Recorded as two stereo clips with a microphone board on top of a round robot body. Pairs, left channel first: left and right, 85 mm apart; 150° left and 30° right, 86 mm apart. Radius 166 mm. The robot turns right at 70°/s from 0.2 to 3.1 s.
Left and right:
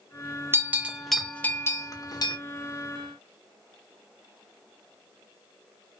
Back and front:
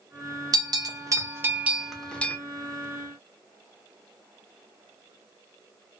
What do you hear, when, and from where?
0.5 s a bell: 40° right, 0.8 m; by 2.4 s 90° left, 0.8 m